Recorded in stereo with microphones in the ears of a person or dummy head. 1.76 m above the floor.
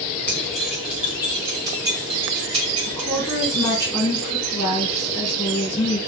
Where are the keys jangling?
10° left (ahead or behind), 1.8 m; by 3.9 s 40° right (ahead or behind), 3 m.